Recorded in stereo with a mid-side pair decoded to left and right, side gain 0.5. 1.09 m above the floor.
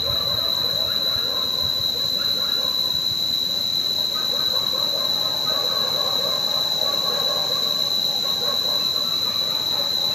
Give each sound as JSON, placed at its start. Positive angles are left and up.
{"t": 0.0, "sound": "an insect", "azimuth_deg": 20, "distance_m": 0.8}